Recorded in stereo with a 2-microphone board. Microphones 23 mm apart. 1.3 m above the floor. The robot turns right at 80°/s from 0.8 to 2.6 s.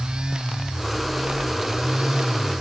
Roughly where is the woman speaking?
I don't hear a woman speaking.